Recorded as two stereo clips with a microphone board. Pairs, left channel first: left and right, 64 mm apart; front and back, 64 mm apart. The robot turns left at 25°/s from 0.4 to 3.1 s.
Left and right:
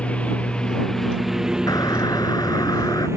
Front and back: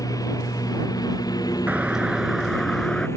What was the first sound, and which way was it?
A lawn mower, 20° left.